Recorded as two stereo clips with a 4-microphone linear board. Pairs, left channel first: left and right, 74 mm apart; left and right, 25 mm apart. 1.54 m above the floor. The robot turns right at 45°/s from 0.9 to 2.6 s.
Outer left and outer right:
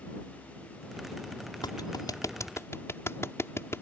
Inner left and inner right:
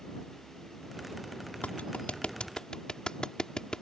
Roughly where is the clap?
Left.